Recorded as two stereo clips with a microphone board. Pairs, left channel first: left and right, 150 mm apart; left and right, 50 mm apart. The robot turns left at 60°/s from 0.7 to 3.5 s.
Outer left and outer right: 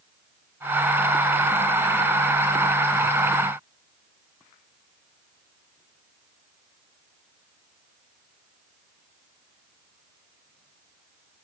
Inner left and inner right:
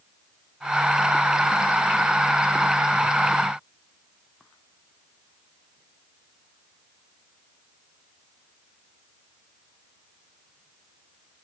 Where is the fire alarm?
I don't hear a fire alarm.